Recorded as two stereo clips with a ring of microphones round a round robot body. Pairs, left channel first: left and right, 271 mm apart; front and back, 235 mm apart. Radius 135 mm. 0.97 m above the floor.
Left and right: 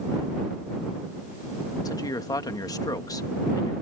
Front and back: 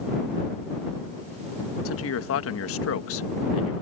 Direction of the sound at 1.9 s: 15° left.